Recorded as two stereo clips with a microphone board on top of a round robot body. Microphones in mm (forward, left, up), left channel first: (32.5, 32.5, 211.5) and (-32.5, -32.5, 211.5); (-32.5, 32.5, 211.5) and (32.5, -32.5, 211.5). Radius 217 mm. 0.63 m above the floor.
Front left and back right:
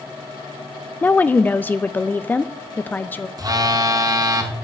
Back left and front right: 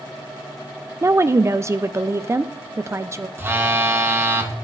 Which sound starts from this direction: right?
A phone buzzing, at 3.4 s.